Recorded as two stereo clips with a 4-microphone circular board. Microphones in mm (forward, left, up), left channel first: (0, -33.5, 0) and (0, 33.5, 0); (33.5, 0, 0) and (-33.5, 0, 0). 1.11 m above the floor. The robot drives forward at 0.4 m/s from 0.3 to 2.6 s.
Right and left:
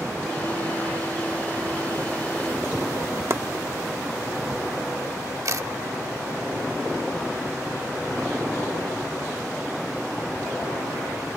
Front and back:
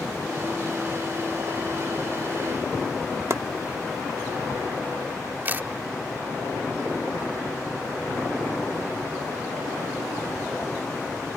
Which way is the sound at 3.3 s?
135° left.